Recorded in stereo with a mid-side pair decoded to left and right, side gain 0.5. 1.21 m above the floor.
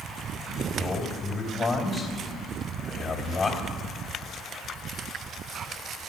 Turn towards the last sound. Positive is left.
turn(degrees=35)